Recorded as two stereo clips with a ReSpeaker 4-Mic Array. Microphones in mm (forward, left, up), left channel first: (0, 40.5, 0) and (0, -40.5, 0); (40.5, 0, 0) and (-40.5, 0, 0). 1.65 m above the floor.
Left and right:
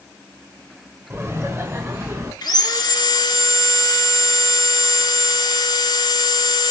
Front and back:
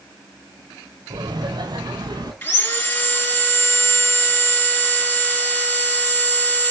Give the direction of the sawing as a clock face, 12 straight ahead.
10 o'clock.